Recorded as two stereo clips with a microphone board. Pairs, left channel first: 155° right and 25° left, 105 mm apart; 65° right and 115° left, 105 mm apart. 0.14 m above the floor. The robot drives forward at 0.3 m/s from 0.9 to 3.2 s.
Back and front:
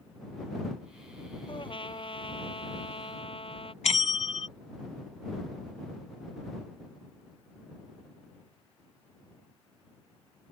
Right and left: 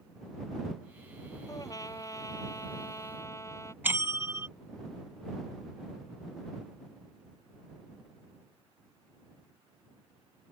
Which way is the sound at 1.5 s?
120° right.